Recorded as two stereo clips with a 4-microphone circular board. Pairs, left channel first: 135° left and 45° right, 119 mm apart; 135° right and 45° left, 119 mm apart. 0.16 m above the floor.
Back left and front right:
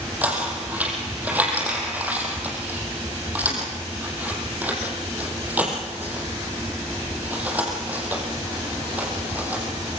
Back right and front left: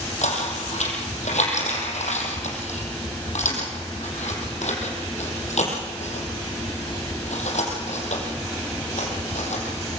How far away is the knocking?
About 5 m.